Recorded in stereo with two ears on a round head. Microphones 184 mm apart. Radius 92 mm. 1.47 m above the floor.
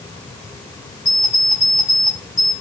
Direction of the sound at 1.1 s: 35° left (ahead or behind).